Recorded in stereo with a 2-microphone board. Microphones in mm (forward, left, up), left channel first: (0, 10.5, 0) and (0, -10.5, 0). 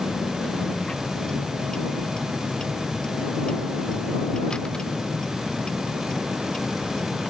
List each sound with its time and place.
0.0 s a vehicle: 45° left (ahead or behind)